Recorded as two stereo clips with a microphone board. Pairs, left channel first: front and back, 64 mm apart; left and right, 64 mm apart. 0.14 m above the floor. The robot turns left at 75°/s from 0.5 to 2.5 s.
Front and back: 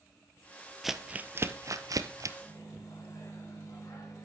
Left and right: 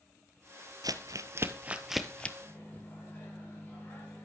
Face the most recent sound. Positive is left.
turn(degrees=30)